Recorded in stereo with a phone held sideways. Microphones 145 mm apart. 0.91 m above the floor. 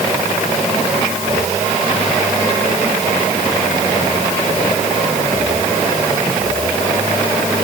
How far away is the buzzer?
No buzzer in this recording.